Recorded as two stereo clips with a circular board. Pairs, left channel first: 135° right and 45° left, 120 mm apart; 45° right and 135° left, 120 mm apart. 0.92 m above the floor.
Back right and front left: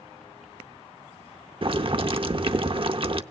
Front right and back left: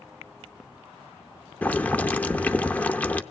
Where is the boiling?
30° left, 0.7 m.